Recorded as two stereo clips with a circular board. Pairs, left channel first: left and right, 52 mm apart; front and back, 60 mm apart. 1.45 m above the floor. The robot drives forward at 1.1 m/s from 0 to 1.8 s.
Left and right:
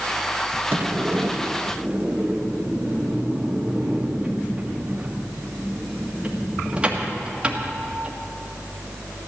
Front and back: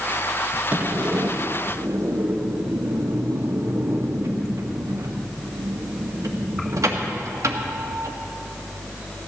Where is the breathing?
No breathing in this recording.